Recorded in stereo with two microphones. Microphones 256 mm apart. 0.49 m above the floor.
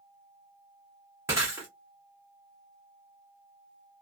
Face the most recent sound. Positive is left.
turn(degrees=-10)  # may be behind; listen again after turning